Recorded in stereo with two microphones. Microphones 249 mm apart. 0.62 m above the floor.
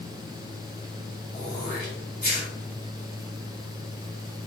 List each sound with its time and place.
1.3 s throat clearing: 40° left (ahead or behind), 3 m